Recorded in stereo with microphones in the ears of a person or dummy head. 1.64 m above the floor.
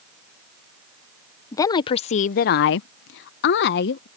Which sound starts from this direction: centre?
A woman speaking, at 1.5 s.